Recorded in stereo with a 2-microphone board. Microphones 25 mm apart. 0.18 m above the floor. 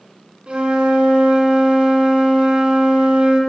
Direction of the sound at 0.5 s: 45° right (ahead or behind).